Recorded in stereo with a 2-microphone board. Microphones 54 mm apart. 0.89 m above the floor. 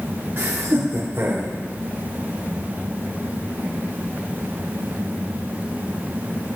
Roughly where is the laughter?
Right.